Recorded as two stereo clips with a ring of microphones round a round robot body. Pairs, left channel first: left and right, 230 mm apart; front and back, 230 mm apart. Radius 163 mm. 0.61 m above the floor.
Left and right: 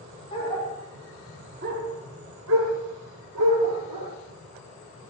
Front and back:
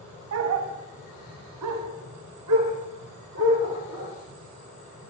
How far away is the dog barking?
About 1.7 m.